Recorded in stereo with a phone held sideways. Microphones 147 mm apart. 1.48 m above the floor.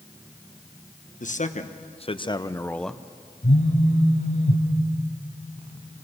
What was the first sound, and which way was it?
A man speaking, 60° left (ahead or behind).